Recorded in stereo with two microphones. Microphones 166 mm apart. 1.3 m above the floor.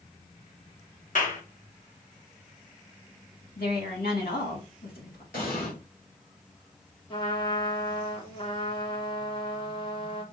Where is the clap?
55° left (ahead or behind), 1.1 m.